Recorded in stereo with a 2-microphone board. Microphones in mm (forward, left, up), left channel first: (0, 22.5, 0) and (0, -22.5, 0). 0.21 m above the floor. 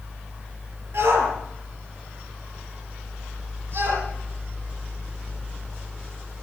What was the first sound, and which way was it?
A shout, 70° right (ahead or behind).